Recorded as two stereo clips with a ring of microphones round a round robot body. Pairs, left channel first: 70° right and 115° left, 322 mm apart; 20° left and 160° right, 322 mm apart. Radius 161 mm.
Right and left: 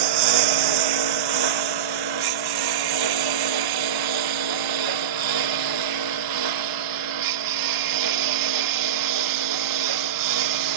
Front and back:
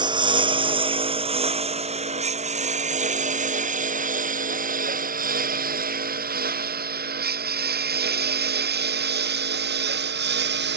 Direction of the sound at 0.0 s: 125° left.